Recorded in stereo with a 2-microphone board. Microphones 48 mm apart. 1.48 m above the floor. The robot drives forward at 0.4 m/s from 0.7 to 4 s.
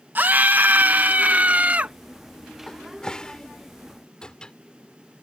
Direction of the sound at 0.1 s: 40° right (ahead or behind).